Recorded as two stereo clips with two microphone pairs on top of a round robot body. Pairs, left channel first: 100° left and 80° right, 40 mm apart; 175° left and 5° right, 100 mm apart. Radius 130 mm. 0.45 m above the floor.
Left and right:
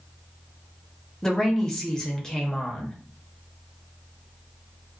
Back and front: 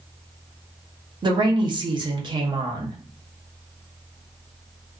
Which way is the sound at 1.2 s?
20° left.